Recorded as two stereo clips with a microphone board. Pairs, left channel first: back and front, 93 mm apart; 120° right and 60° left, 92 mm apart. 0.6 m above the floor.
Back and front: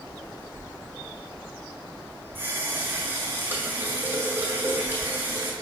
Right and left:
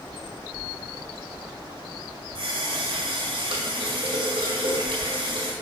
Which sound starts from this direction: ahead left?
A running tap, at 2.4 s.